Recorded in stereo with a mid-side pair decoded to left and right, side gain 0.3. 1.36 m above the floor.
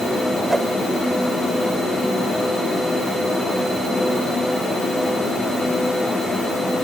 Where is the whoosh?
25° right.